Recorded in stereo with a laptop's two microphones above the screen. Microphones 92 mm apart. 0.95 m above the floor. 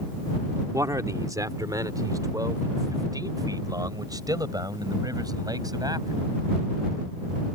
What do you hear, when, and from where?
0.7 s a man speaking: 40° right (ahead or behind); by 6.2 s 45° right (ahead or behind)